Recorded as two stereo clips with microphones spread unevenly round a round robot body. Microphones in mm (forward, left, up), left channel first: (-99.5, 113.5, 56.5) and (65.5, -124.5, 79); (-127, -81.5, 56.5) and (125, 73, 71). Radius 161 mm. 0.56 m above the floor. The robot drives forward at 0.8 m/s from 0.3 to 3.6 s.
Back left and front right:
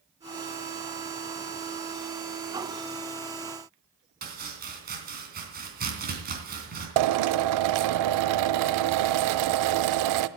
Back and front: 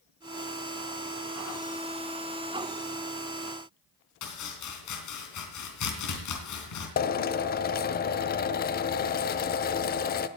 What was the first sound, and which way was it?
Chopping, 115° right.